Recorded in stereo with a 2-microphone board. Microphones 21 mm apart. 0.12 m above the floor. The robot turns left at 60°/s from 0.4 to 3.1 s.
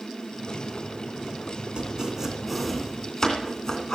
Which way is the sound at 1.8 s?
45° right (ahead or behind).